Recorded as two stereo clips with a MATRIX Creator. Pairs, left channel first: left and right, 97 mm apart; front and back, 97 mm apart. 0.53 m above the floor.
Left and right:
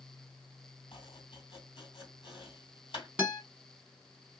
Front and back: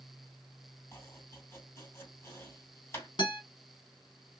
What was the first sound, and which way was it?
Chopping, 60° left.